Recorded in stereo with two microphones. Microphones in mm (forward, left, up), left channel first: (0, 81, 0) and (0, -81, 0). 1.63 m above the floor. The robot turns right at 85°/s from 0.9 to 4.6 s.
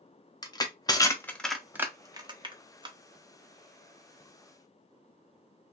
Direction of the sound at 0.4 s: 25° left (ahead or behind).